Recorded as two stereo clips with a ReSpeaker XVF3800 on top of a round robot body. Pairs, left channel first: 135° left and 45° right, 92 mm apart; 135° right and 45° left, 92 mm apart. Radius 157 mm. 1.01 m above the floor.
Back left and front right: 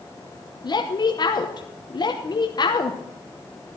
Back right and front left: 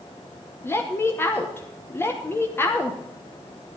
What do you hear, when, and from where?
0.6 s a woman speaking: 165° left, 1.2 m